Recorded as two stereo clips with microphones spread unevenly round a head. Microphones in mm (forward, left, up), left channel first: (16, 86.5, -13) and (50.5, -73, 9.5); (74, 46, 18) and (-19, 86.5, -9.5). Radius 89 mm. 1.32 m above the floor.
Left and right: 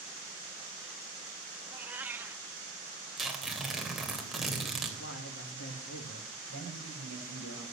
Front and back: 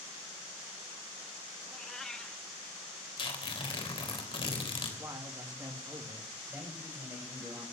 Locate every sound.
1.7 s a cat meowing: 45° right, 0.7 m
3.2 s tearing paper: 10° left, 3.5 m
5.0 s a man speaking: 95° left, 3 m
6.5 s a man speaking: 85° left, 6.5 m